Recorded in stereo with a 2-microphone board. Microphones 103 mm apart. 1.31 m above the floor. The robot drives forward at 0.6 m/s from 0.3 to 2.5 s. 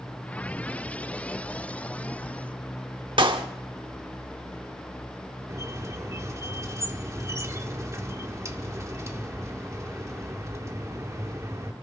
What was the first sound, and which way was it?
A clap, 60° right (ahead or behind).